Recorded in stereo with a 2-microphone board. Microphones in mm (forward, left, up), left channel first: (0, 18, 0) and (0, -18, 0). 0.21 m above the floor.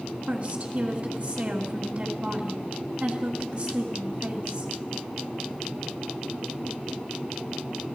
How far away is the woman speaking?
About 1.9 m.